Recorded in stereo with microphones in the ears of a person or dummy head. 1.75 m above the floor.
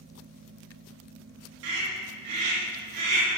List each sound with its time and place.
1.6 s a scream: 75° right (ahead or behind), 3 m; by 3.3 s 60° right (ahead or behind), 4 m